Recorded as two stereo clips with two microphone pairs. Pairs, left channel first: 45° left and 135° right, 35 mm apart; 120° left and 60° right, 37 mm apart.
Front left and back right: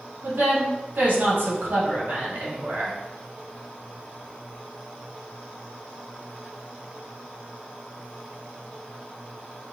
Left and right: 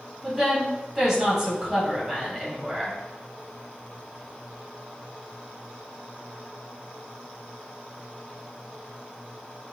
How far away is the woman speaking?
About 2 m.